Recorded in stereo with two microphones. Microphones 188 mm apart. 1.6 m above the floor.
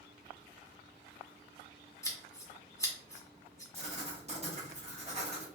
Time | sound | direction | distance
2.0 | scissors | 15° left (ahead or behind) | 0.7 m
3.7 | writing | 35° right (ahead or behind) | 0.9 m